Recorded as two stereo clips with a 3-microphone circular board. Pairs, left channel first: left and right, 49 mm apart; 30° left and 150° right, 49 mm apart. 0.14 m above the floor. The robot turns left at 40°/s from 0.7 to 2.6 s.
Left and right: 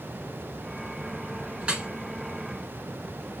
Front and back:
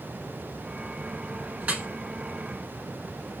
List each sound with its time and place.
1.6 s dripping: 135° right, 0.8 m; by 1.9 s 145° right, 0.8 m